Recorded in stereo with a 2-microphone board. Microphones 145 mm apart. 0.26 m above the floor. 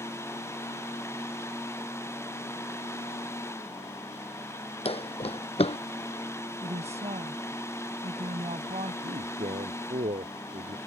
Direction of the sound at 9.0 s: 50° right (ahead or behind).